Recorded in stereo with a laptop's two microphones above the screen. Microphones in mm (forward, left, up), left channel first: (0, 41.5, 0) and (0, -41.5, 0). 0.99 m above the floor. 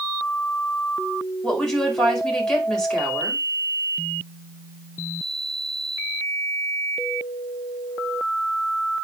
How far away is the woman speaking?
About 5 m.